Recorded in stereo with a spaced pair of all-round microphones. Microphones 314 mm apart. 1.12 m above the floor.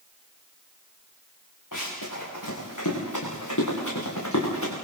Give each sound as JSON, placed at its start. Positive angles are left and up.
{"t": 1.7, "sound": "running footsteps", "side_deg": 80, "distance_m": 8.5}